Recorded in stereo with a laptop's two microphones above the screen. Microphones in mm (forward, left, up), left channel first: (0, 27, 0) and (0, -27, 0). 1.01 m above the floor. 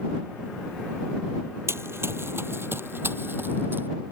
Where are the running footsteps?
50° right (ahead or behind); by 3.9 s 40° right (ahead or behind).